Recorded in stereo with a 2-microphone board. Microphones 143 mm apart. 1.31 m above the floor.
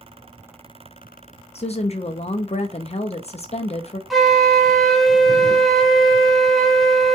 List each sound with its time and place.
1.6 s a woman speaking: 45° left (ahead or behind), 0.5 m
4.1 s a flute: centre (ahead or behind), 0.6 m